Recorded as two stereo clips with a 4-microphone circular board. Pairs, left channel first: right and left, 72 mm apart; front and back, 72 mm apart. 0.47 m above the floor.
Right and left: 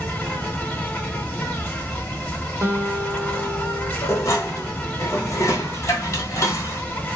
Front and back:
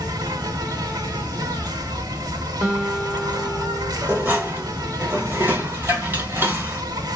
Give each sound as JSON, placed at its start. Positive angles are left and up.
{"t": 0.0, "sound": "an insect", "azimuth_deg": -160, "distance_m": 0.9}
{"t": 2.6, "sound": "a guitar", "azimuth_deg": 100, "distance_m": 0.8}
{"t": 4.0, "sound": "dishes clattering", "azimuth_deg": -125, "distance_m": 1.0}